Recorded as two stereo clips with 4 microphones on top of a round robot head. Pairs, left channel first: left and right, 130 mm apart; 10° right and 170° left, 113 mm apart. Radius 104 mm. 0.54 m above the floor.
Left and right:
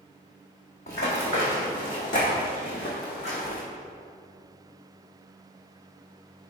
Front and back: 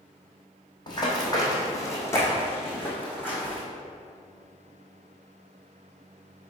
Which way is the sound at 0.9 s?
40° left.